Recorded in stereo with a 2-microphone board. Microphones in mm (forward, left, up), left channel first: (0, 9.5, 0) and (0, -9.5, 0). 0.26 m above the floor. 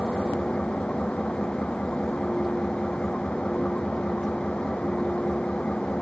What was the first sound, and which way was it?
An engine running, 85° left.